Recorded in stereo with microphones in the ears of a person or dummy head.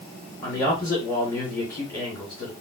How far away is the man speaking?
About 1.7 m.